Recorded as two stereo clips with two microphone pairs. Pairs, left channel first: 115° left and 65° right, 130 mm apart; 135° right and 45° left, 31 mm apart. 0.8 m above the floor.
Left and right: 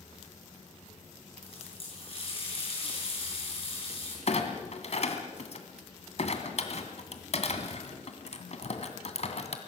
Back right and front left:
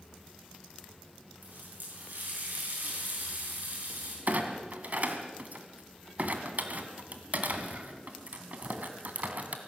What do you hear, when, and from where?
1.4 s a running tap: 70° left, 7 m
4.3 s a clunk: 80° left, 2 m